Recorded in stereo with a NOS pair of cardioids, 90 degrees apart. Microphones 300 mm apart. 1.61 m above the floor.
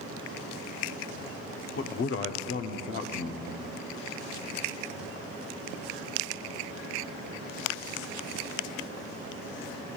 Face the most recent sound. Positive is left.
turn(degrees=45)